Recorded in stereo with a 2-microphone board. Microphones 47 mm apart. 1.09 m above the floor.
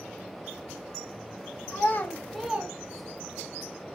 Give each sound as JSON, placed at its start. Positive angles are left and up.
{"t": 1.7, "sound": "a child speaking", "side_deg": 50, "distance_m": 0.8}